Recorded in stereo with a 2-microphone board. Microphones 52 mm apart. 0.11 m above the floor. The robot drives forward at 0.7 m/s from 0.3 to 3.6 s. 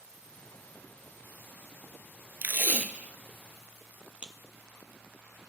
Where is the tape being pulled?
35° right (ahead or behind), 0.6 m; by 4.3 s 20° right (ahead or behind), 1.1 m.